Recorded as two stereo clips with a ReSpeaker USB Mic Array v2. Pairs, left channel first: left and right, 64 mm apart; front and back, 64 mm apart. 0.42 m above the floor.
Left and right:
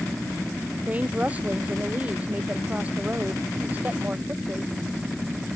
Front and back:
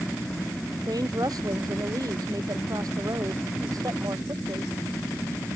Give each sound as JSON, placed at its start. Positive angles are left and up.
{"t": 0.9, "sound": "a woman speaking", "azimuth_deg": -160}